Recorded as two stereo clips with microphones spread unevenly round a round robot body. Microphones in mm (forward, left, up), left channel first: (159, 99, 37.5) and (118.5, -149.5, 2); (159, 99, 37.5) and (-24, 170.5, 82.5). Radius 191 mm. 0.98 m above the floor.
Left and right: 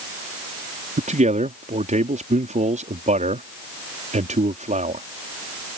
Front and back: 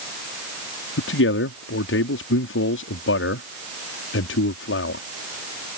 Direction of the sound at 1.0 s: 35° right.